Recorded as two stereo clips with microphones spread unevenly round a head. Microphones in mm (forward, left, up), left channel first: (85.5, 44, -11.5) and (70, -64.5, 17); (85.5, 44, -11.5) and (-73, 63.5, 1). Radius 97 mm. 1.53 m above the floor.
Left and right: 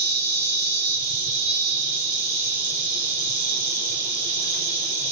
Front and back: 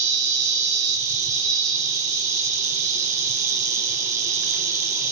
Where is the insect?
135° left, 1.6 m.